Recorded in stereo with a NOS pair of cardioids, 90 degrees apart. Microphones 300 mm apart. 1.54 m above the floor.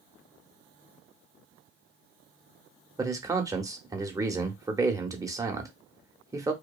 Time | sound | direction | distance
3.0 | a man speaking | 10° right | 0.8 m